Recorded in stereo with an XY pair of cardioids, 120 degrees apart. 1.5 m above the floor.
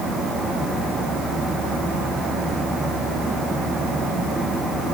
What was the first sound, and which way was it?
Only background noise.